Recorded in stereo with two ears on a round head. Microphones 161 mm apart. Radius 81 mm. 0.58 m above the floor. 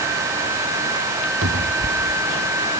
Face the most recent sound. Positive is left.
turn(degrees=-85)